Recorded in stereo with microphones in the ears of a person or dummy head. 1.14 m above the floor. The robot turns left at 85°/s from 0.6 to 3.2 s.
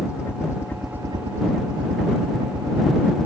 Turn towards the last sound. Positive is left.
turn(degrees=155)